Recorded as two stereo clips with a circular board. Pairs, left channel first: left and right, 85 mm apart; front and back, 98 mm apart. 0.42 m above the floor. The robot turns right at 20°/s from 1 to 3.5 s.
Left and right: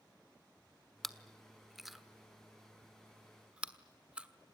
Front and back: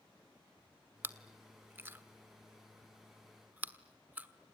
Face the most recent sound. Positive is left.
turn(degrees=-145)